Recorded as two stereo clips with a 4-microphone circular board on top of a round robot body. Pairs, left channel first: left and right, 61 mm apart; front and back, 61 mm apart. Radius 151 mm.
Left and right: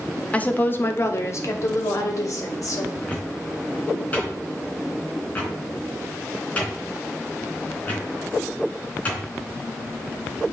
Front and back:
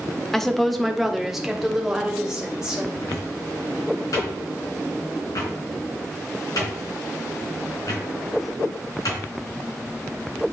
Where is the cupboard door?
25° left, 3.5 m.